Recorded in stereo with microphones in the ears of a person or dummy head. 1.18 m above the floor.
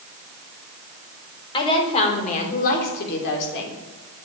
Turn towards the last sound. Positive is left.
turn(degrees=75)  # may be behind; listen again after turning